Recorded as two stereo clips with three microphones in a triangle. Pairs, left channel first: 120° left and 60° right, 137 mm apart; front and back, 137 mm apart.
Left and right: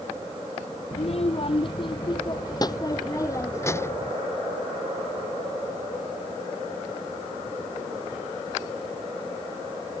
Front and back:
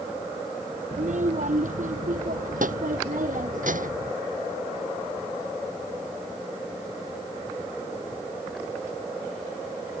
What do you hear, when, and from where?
0.9 s a child speaking: 155° left; by 4.1 s 165° right